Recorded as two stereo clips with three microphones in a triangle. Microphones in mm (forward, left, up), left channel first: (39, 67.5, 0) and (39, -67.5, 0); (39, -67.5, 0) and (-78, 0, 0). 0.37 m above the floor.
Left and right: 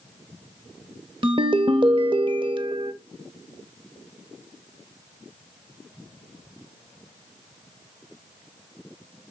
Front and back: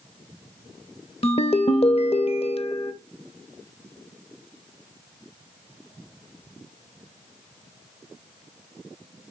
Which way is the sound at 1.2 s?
50° right.